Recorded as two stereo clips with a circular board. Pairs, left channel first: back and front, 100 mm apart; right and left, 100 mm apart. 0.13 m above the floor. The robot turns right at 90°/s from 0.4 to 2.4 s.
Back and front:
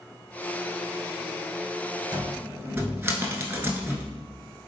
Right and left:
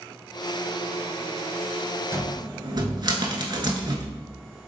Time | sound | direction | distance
2.1 | a cupboard door | 35° left | 0.7 m